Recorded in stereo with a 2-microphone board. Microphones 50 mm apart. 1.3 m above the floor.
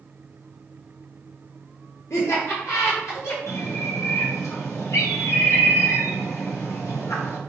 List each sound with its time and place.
2.1 s laughter: 70° left (ahead or behind), 1.2 m; by 3.4 s 85° left, 2 m
3.5 s a bird: 70° left (ahead or behind), 1.0 m